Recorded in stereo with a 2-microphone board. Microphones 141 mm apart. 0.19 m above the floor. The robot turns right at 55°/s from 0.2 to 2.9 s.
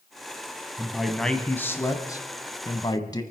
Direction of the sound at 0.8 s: 10° right (ahead or behind).